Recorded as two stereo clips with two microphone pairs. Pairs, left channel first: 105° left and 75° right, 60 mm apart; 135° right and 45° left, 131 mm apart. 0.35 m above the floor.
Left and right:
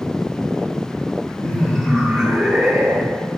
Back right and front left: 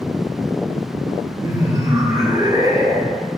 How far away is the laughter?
About 1.4 m.